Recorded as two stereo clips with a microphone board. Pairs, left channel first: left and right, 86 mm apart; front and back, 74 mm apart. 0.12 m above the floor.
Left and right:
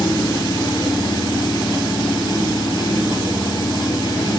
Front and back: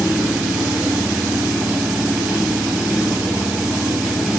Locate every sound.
0.0 s an engine running: 105° left, 1.9 m